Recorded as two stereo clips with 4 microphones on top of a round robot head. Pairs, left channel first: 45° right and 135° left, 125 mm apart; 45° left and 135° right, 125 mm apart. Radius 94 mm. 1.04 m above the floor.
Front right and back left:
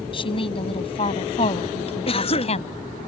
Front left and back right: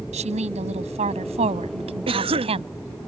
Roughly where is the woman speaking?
Right.